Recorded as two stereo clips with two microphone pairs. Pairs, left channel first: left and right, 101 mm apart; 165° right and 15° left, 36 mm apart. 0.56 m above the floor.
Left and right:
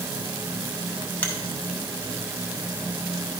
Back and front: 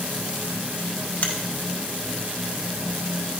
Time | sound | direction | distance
1.2 | a finger snap | 160° left | 1.2 m